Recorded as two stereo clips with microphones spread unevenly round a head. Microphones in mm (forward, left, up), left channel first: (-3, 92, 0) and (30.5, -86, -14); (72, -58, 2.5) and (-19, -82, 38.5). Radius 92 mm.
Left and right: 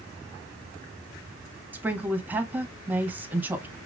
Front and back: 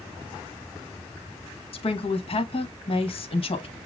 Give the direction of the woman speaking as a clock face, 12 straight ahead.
12 o'clock.